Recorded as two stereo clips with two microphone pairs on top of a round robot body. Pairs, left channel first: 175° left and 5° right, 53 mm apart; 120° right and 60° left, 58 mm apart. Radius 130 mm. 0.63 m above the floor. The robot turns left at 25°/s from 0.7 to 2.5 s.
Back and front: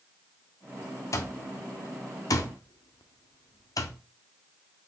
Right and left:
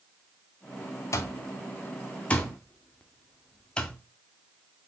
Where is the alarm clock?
155° right, 0.7 m; by 4.0 s 170° left, 0.7 m.